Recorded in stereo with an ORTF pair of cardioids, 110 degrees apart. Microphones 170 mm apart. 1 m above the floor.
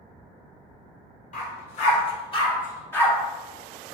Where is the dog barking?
50° left, 1.4 m; by 3.1 s 10° left, 1.0 m.